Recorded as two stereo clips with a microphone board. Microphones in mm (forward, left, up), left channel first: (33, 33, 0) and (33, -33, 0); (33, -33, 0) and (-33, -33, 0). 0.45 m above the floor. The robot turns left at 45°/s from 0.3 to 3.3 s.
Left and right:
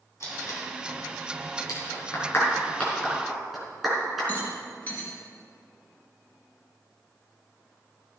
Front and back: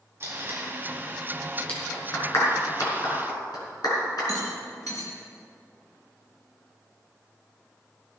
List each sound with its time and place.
0.2 s tape being pulled: 130° left, 3.5 m; by 0.7 s 115° left, 3.5 m
1.7 s a clap: 70° left, 5 m; by 4.3 s 5° right, 5 m
4.3 s a rattle: 25° left, 3.5 m